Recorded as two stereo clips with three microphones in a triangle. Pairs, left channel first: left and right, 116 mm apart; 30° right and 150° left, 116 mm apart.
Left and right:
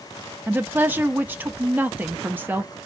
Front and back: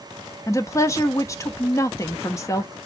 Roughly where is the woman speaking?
Ahead right.